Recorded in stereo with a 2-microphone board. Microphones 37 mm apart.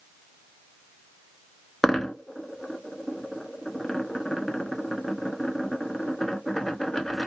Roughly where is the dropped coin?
Centre.